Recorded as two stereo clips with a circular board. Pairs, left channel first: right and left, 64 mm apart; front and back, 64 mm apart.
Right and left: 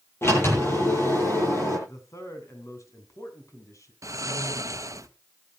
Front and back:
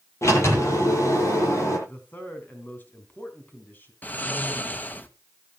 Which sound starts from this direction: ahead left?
Snoring, at 4.0 s.